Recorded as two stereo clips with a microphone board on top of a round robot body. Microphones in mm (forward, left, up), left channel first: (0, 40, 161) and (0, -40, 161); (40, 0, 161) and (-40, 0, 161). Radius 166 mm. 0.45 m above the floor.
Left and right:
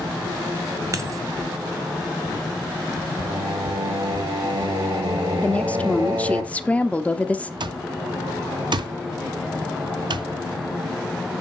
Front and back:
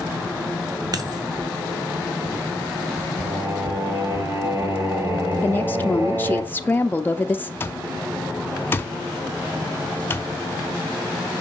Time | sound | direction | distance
0.9 | a dropped coin | 140° right | 1.0 m
3.2 | singing | 125° right | 2.0 m
5.4 | a woman speaking | 35° left | 0.7 m
7.6 | an alarm clock | 65° right | 0.6 m